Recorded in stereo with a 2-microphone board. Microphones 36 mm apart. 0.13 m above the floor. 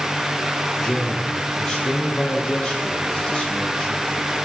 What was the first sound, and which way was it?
A man speaking, 15° left (ahead or behind).